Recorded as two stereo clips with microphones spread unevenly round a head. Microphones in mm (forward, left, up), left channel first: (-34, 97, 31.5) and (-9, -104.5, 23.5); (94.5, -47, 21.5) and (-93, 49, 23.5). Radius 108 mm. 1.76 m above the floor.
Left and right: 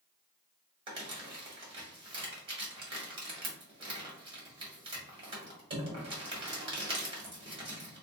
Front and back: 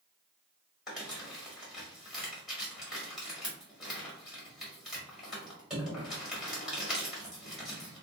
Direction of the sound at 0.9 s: 125° right.